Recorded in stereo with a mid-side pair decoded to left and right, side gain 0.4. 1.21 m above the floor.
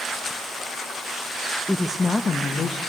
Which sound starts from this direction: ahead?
A woman speaking, at 1.7 s.